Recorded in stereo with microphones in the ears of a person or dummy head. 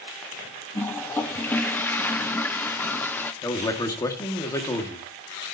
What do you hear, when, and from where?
0.8 s a toilet flushing: 10° left (ahead or behind), 0.5 m
3.4 s a man speaking: 20° left (ahead or behind), 2 m